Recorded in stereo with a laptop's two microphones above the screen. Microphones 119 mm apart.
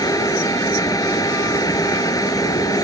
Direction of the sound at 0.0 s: 30° left (ahead or behind).